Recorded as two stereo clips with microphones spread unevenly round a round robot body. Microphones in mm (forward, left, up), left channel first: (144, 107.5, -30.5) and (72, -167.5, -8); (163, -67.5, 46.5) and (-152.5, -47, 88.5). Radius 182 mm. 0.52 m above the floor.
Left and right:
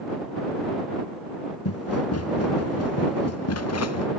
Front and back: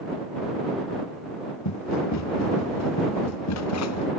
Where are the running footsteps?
40° left; by 4.1 s 45° left.